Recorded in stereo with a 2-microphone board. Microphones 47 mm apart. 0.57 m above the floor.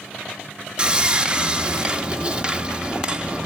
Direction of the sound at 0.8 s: 25° right (ahead or behind).